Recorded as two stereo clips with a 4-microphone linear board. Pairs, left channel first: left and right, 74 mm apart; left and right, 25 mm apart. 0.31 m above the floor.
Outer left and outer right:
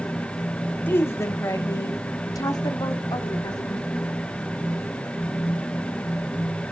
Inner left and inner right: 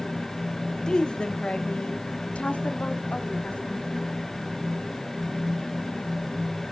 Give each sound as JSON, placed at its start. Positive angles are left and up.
{"t": 0.9, "sound": "a woman speaking", "side_deg": 30, "distance_m": 1.0}